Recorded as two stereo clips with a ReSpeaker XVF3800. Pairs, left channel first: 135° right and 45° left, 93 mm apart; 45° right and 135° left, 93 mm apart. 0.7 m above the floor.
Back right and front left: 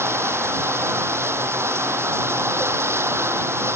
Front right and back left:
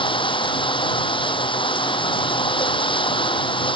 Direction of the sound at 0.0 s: 20° right.